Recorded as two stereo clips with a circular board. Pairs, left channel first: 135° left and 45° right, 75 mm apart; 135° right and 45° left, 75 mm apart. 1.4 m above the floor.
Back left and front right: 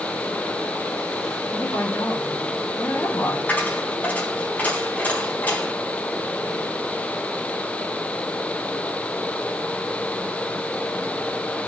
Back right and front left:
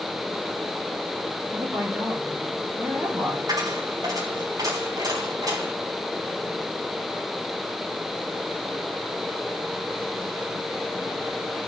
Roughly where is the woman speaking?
Left.